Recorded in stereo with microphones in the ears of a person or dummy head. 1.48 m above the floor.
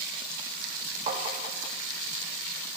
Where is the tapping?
30° right (ahead or behind), 1.5 m.